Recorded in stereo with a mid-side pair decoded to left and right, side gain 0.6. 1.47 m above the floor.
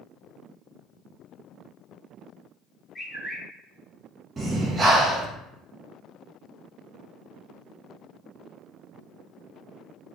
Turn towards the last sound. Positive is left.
turn(degrees=-25)